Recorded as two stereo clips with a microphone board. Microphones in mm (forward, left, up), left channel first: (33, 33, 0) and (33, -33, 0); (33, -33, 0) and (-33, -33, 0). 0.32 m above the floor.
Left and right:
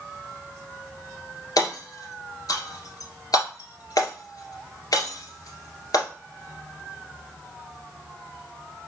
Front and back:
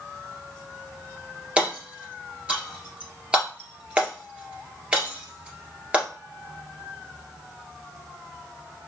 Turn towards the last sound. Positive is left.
turn(degrees=110)